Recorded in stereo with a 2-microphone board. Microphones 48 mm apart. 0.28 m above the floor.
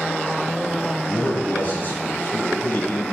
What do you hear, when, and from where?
1.1 s a man speaking: 40° left (ahead or behind), 1.2 m